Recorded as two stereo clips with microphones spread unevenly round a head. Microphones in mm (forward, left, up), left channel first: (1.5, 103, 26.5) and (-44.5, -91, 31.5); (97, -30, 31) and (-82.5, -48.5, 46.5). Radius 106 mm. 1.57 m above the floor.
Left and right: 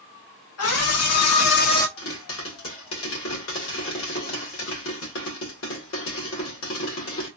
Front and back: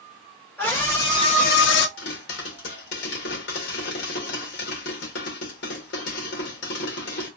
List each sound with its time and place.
0.6 s a scream: 90° left, 1.9 m; by 1.9 s 5° right, 0.6 m
2.0 s a pop: 45° left, 1.7 m